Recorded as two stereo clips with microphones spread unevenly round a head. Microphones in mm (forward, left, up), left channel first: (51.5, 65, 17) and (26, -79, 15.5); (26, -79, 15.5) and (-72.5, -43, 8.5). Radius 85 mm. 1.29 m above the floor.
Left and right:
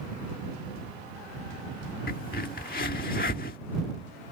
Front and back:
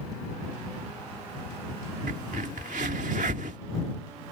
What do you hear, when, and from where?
2.1 s a crack: 125° left